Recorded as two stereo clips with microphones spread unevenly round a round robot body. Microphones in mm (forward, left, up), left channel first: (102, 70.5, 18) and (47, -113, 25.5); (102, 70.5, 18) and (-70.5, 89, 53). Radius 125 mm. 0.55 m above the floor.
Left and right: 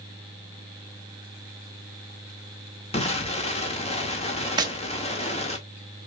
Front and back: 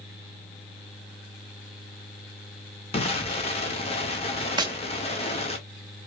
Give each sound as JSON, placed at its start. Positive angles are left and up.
{"t": 2.9, "sound": "an explosion", "azimuth_deg": 25, "distance_m": 2.0}
{"t": 4.6, "sound": "tapping", "azimuth_deg": -135, "distance_m": 1.2}